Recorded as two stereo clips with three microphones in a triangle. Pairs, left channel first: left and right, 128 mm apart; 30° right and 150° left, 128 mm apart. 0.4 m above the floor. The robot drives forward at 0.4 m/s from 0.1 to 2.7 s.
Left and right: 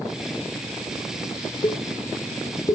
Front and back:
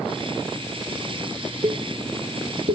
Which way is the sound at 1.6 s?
125° left.